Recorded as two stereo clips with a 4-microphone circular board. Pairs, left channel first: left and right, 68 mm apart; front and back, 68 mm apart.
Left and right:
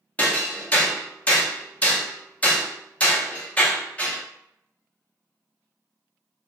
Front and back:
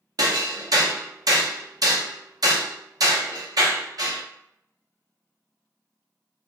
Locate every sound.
0.2 s hammering: 160° left, 0.6 m